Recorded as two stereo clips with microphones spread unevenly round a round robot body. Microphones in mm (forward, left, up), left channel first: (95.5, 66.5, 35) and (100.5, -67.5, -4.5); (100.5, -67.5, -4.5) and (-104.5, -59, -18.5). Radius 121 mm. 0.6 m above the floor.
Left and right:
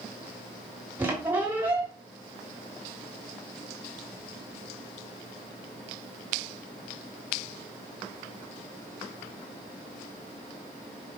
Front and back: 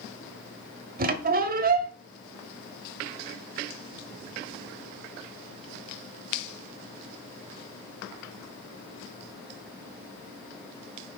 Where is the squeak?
150° right, 0.9 m.